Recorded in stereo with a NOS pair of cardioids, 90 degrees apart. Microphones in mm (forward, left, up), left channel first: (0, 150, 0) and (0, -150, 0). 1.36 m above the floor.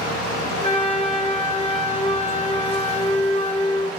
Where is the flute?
25° left, 2 m.